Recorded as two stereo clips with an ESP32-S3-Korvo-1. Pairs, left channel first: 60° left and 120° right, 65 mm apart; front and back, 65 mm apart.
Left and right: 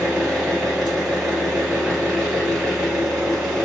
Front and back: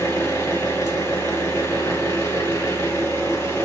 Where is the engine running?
30° right, 1.4 m.